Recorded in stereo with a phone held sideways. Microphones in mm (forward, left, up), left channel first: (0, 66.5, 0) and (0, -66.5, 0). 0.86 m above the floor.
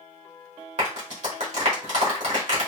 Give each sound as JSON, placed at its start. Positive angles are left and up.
{"t": 0.8, "sound": "a clap", "side_deg": -65, "distance_m": 1.8}